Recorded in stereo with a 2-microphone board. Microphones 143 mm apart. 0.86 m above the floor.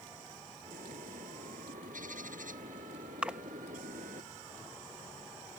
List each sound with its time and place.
0.7 s a bird: 70° right (ahead or behind)
3.2 s a splash: 10° right (ahead or behind)